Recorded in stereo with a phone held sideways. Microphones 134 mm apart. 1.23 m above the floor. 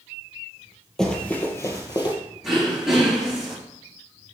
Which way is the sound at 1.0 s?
5° left (ahead or behind).